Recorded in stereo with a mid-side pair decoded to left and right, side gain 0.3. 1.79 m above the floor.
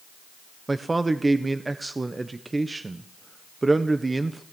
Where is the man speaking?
30° right, 1.4 m.